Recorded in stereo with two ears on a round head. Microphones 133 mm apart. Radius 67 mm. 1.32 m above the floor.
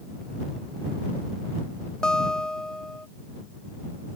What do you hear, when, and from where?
2.0 s a guitar: 5° left (ahead or behind)